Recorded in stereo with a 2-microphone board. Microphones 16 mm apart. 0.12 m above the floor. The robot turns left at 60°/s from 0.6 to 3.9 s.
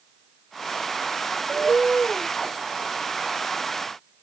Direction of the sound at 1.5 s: 80° right.